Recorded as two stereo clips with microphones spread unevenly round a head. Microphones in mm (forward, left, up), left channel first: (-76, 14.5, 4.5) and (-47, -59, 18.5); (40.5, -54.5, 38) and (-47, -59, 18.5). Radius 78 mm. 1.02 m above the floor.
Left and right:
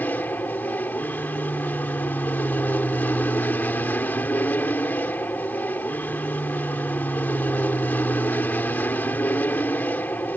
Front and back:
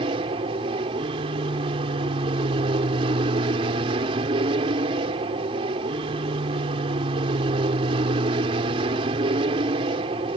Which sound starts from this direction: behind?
An aircraft, at 0.0 s.